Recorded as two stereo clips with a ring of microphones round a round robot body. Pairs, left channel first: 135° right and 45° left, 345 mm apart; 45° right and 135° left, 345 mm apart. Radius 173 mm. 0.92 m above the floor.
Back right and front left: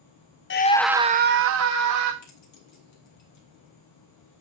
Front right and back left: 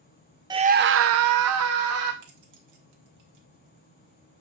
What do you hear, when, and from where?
0.5 s a scream: 155° right, 0.5 m; by 2.1 s 85° left, 1.2 m
2.2 s keys jangling: straight behind, 2 m